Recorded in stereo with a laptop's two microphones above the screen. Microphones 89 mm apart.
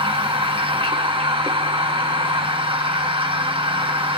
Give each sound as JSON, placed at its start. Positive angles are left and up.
{"t": 0.0, "sound": "a machine running", "side_deg": -70, "distance_m": 1.2}